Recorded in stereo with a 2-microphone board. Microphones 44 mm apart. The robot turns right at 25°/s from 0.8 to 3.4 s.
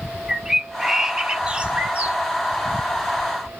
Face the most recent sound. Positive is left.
turn(degrees=-105)